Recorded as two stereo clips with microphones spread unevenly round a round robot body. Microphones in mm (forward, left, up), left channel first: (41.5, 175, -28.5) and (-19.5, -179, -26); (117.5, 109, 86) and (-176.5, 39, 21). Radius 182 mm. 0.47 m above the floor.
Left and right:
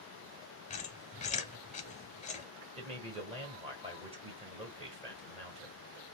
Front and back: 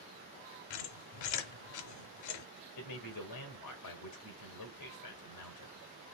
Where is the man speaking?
25° right, 1.6 m.